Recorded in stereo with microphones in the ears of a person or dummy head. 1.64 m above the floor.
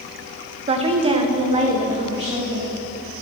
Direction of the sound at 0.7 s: 40° right (ahead or behind).